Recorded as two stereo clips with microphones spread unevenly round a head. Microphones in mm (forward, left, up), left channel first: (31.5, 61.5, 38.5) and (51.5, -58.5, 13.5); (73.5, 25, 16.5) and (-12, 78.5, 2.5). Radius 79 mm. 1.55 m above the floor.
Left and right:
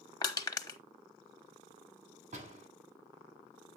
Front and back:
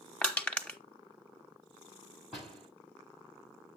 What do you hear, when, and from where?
0.2 s crushing: 45° left, 1.1 m
2.3 s a door slam: 125° right, 9.5 m